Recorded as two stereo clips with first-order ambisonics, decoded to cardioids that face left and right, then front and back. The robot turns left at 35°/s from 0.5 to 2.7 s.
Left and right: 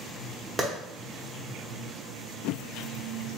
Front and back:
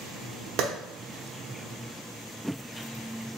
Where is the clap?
170° right, 0.8 m.